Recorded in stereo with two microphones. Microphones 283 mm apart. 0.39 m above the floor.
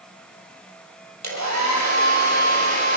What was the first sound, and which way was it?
A hair dryer, 70° right (ahead or behind).